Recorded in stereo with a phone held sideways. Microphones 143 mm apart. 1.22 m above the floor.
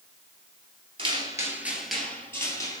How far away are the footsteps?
About 1.6 m.